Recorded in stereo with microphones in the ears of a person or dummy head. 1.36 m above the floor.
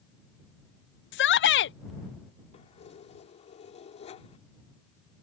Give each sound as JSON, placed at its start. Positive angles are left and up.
{"t": 1.1, "sound": "a shout", "side_deg": 55}
{"t": 2.5, "sound": "keys jangling", "side_deg": 30}